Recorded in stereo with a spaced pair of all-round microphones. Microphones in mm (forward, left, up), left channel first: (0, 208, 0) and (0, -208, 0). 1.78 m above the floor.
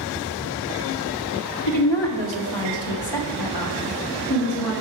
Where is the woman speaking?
85° left, 1.2 m; by 4.7 s 65° left (ahead or behind), 2.5 m.